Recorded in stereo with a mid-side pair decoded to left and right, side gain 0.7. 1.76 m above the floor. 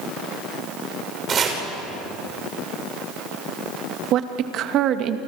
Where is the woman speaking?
50° right, 2 m.